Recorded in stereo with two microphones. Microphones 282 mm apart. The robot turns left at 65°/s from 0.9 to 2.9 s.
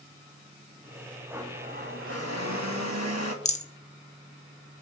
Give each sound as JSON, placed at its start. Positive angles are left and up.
{"t": 1.3, "sound": "a blender", "azimuth_deg": -10, "distance_m": 2.5}
{"t": 3.5, "sound": "a rattle", "side_deg": 25, "distance_m": 1.0}